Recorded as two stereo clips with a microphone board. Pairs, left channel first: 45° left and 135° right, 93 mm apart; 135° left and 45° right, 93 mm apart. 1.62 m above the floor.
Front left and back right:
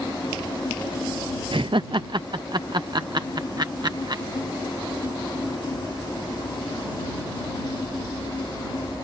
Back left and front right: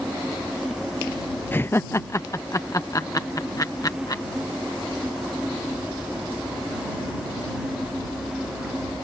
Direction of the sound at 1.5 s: 155° right.